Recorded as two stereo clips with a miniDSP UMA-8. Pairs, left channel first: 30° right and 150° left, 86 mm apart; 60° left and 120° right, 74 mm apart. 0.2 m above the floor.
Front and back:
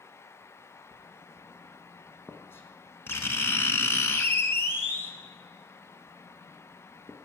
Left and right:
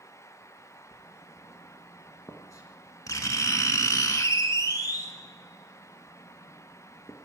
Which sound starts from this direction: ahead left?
Writing, at 0.9 s.